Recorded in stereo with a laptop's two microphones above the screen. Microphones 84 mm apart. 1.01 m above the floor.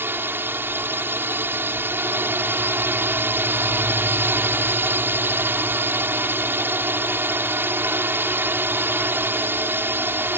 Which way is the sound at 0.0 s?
25° right (ahead or behind).